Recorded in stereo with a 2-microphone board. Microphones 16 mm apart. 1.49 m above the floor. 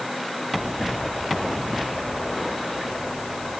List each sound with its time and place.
Only background noise.